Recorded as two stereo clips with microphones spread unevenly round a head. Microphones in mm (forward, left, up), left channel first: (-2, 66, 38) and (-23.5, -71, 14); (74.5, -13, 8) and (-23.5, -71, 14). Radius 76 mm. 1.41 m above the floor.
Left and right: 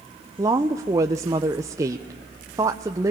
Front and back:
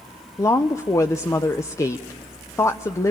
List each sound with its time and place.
0.4 s a woman speaking: 35° right, 0.9 m